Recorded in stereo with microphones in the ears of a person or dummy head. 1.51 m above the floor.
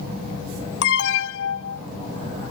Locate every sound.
0.8 s an alarm: 90° left